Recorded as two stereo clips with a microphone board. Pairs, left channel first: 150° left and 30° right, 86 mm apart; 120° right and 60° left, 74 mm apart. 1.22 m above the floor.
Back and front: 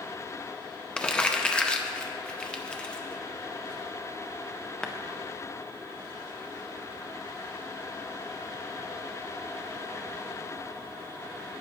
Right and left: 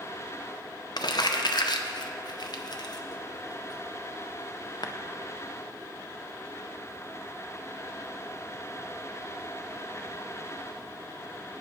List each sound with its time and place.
1.0 s crumpling: 130° right, 0.6 m